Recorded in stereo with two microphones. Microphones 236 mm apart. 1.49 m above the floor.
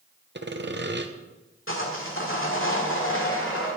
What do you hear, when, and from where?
0.3 s sawing: 50° right (ahead or behind), 0.7 m
1.7 s sawing: 60° left (ahead or behind), 1.9 m